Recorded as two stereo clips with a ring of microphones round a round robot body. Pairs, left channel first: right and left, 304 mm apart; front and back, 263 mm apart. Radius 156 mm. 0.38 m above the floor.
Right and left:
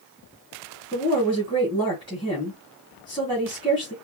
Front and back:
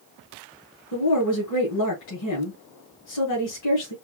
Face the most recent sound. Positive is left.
turn(degrees=-15)